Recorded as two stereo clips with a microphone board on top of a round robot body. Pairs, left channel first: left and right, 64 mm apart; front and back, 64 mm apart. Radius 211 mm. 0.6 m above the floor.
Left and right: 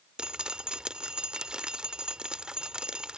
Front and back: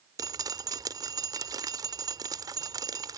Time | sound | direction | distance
0.2 | dripping | 165° right | ?